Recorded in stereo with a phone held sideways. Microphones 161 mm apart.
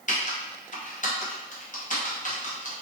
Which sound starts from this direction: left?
Typing on a keyboard, at 0.1 s.